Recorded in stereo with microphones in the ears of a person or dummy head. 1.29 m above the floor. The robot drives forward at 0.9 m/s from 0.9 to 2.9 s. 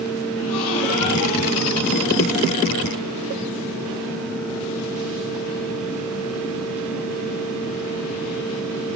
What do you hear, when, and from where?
0.4 s a gasp: 75° left (ahead or behind), 2.5 m; by 2.5 s 70° left (ahead or behind), 2.5 m